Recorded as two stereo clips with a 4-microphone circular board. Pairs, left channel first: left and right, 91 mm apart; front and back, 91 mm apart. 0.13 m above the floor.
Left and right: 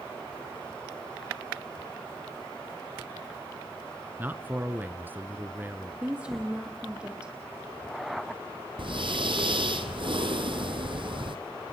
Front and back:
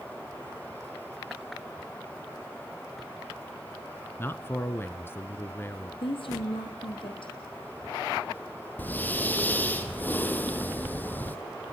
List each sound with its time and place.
4.2 s a man speaking: 40° right, 1.2 m
6.0 s a woman speaking: 15° right, 5 m
8.8 s breathing: 70° right, 1.5 m